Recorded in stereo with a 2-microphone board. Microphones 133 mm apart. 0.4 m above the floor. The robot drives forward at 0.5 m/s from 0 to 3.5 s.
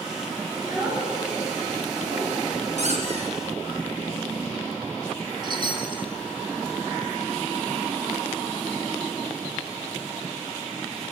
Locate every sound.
0.6 s a child speaking: 20° right (ahead or behind), 5 m; by 2.4 s 25° right (ahead or behind), 4 m
2.8 s a squeak: 55° right (ahead or behind), 2.5 m; by 3.4 s 50° right (ahead or behind), 3 m
5.4 s a chime: 35° right (ahead or behind), 1.6 m